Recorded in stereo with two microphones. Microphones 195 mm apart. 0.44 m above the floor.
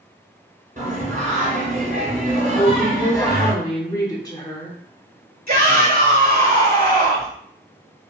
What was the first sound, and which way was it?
Singing, 45° right (ahead or behind).